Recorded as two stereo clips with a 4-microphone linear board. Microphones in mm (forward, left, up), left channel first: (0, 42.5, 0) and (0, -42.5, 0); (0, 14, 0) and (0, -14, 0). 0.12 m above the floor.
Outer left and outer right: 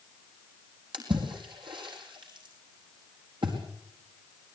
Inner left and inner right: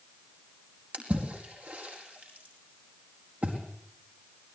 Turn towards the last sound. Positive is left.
turn(degrees=-70)  # may be behind; listen again after turning